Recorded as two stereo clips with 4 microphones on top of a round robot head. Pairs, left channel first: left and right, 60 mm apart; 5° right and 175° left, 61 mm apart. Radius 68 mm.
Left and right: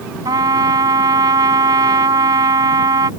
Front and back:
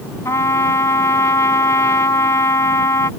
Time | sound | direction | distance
0.2 | a trumpet | 60° right | ?